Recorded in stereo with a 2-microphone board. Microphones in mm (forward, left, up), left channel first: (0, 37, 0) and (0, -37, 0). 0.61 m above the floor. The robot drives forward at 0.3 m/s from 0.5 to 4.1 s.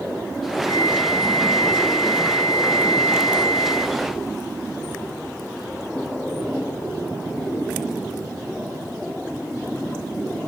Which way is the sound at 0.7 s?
80° left.